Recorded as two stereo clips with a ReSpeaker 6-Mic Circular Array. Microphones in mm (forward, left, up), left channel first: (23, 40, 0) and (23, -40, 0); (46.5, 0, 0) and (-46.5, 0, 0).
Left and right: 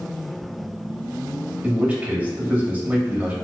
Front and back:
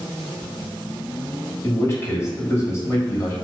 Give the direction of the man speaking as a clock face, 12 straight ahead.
1 o'clock.